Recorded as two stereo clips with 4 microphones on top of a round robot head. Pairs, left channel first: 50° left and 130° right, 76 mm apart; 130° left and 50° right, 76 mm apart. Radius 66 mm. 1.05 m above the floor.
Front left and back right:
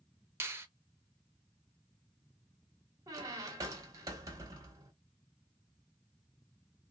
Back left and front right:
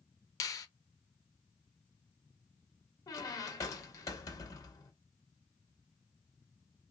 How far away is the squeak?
About 0.9 m.